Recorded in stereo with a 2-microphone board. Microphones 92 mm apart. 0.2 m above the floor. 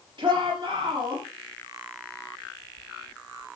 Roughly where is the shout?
Right.